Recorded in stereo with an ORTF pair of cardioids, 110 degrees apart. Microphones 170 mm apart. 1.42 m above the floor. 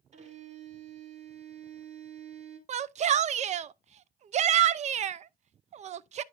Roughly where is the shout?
Ahead right.